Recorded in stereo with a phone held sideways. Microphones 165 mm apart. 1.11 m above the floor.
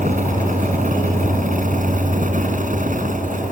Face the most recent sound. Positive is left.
turn(degrees=-50)  # may be behind; listen again after turning